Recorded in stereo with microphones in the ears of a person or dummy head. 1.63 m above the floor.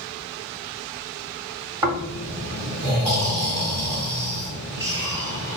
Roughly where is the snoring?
Centre.